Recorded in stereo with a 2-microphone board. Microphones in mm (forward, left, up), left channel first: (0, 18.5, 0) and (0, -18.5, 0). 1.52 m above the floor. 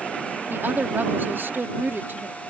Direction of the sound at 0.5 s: 75° right (ahead or behind).